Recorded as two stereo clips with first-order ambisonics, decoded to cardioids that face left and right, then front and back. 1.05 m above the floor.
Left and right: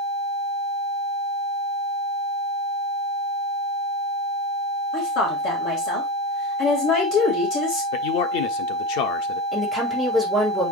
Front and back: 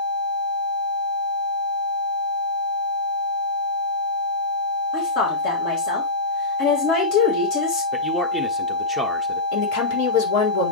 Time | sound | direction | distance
4.9 | a woman speaking | 45° left | 4 m
7.9 | a man speaking | 80° left | 1.3 m
9.5 | a woman speaking | 5° left | 3.5 m